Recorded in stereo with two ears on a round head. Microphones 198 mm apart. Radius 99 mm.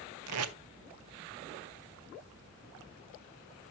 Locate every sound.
0.3 s tape being pulled: 75° right (ahead or behind), 0.6 m